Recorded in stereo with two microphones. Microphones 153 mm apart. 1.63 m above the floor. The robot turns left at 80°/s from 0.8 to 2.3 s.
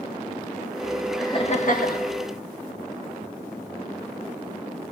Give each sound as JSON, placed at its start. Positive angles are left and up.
{"t": 1.2, "sound": "laughter", "azimuth_deg": 160, "distance_m": 1.9}